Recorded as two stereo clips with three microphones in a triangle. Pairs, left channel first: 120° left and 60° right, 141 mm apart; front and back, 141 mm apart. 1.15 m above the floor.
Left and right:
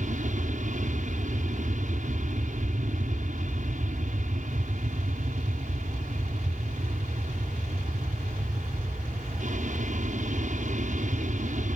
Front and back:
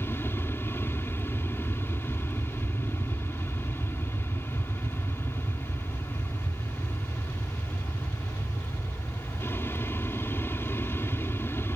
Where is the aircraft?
70° right.